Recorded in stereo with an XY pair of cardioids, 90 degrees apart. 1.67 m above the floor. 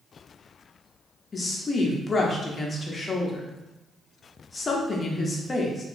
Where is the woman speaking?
40° left, 0.7 m.